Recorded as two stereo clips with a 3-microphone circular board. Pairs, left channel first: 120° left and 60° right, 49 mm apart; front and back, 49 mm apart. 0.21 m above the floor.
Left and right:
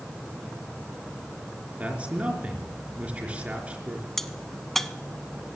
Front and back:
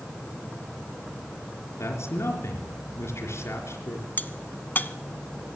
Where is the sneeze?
No sneeze in this recording.